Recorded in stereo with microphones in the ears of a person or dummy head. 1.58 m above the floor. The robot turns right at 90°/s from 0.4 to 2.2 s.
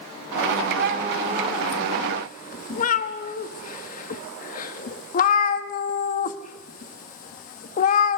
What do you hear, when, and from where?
0.8 s a cat meowing: 55° right (ahead or behind), 1.5 m; by 8.2 s 50° left (ahead or behind), 1.5 m